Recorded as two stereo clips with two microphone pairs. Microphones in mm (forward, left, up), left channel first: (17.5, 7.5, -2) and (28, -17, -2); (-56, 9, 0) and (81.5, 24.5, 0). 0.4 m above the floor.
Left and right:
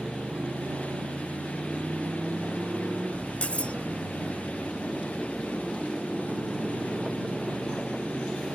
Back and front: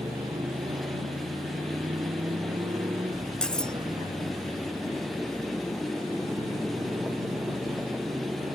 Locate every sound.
0.0 s a motorcycle: 55° right; by 8.6 s 50° right
3.4 s cutlery clinking: 100° left